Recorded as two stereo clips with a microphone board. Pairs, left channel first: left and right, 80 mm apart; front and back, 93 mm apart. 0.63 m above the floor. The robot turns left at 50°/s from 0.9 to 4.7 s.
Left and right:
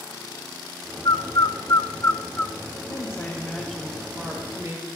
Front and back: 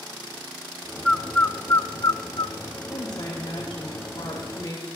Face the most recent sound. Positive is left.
turn(degrees=-45)